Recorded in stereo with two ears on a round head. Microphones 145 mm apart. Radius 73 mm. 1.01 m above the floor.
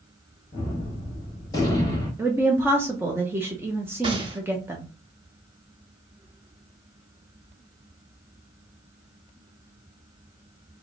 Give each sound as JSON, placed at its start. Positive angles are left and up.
{"t": 0.5, "sound": "a gunshot", "side_deg": 25, "distance_m": 1.4}
{"t": 2.2, "sound": "a woman speaking", "side_deg": -15, "distance_m": 0.7}
{"t": 4.0, "sound": "a gunshot", "side_deg": -30, "distance_m": 0.7}